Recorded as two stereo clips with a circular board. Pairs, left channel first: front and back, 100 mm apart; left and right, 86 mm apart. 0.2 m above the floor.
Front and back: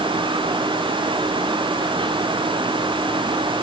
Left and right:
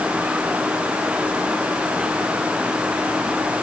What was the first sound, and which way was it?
Only background noise.